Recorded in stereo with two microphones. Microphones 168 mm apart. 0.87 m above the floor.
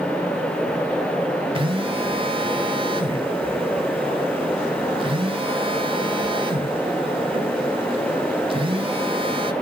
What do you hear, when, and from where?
1.6 s a phone buzzing: 35° right (ahead or behind), 1.3 m